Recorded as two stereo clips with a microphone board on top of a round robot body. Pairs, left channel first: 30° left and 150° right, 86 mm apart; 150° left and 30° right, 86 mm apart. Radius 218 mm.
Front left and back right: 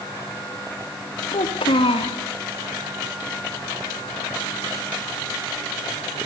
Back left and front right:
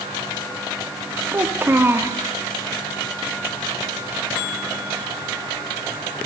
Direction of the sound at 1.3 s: 35° left.